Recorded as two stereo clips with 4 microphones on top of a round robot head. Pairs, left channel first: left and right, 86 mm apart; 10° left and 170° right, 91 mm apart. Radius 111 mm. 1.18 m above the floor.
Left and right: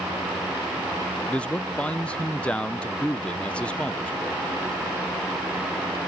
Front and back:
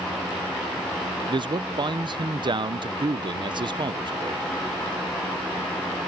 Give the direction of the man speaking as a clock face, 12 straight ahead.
6 o'clock.